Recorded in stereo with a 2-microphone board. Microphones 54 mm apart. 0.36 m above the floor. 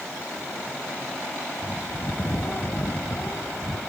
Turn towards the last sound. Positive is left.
turn(degrees=45)  # may be behind; listen again after turning